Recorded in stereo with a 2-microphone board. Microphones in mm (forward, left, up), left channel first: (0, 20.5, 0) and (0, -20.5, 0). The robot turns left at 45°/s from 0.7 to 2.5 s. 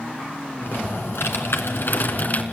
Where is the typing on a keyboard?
120° left, 3 m; by 2.4 s 40° left, 3 m.